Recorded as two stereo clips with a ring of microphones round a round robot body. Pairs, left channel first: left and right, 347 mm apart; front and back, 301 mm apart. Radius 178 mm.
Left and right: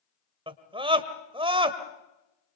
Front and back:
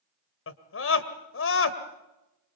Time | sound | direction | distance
0.5 | a scream | 20° right | 1.8 m